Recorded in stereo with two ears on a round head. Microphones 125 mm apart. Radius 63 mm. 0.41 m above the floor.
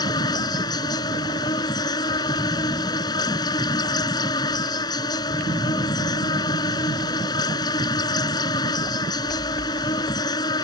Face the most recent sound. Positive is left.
turn(degrees=30)  # may be behind; listen again after turning